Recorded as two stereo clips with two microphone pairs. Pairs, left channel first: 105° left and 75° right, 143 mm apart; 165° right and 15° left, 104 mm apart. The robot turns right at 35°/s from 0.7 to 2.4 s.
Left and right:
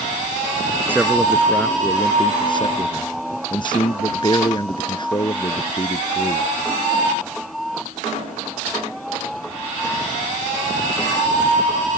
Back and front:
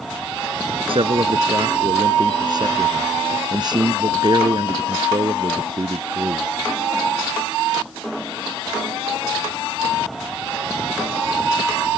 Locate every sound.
0.9 s a man speaking: straight ahead; by 6.5 s 55° left